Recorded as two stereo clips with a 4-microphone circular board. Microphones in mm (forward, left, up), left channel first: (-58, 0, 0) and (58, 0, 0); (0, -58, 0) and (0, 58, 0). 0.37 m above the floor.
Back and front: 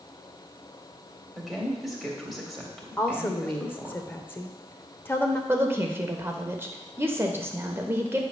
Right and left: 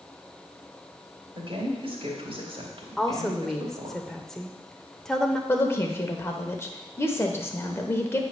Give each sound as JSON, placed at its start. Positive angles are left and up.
{"t": 1.4, "sound": "a woman speaking", "azimuth_deg": 90, "distance_m": 1.8}
{"t": 3.0, "sound": "a woman speaking", "azimuth_deg": -170, "distance_m": 0.8}
{"t": 5.5, "sound": "a woman speaking", "azimuth_deg": -45, "distance_m": 0.9}